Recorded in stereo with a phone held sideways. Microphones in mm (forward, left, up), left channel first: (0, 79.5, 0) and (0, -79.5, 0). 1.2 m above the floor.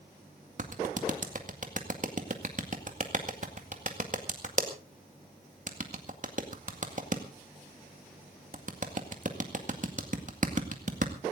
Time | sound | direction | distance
0.6 | a clap | 55° right (ahead or behind) | 2 m